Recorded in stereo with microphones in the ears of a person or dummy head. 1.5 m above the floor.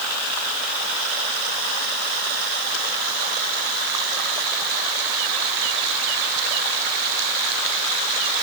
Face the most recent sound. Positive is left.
No sound to turn to.